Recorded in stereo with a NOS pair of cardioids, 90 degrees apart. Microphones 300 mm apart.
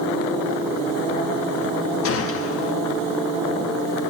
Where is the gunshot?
50° left, 1.6 m.